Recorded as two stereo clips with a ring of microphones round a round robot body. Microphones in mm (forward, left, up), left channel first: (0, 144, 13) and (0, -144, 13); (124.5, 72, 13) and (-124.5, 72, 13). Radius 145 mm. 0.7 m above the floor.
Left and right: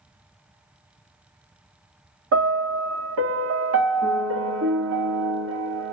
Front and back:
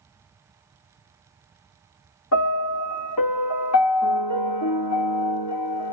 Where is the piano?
40° right, 0.7 m.